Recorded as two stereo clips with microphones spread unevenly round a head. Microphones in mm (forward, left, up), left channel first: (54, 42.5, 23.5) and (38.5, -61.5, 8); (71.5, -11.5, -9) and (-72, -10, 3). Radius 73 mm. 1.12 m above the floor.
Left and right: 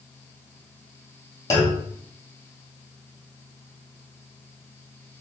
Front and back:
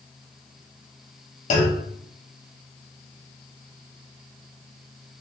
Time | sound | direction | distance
1.5 | a clunk | 35° left | 0.9 m